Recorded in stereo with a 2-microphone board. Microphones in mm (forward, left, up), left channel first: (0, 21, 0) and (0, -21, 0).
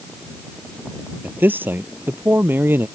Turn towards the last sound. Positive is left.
turn(degrees=-60)  # may be behind; listen again after turning